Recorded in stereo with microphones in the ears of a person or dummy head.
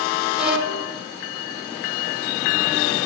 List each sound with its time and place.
0.4 s a violin: 5° right (ahead or behind), 1.6 m